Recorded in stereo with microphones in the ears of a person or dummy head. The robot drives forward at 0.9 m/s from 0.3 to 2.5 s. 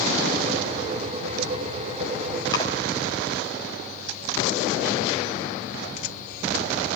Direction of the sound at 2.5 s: 20° left (ahead or behind).